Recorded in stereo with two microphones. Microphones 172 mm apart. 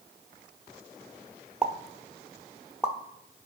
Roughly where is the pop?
Centre.